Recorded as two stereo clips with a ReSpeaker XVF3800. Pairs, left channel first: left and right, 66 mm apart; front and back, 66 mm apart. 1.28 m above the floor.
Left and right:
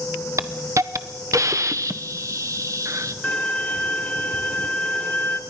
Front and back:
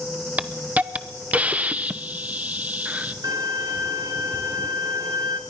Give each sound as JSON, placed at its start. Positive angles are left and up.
{"t": 0.4, "sound": "a hiss", "azimuth_deg": -115, "distance_m": 0.8}
{"t": 3.2, "sound": "a violin", "azimuth_deg": 155, "distance_m": 1.8}